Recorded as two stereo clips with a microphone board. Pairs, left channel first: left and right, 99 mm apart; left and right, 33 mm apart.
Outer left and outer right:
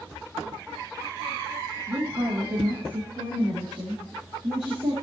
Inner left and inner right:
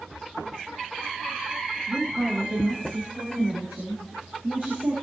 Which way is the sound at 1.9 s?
65° right (ahead or behind).